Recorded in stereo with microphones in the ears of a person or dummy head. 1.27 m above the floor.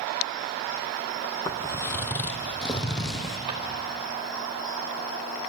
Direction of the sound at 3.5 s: 35° right (ahead or behind).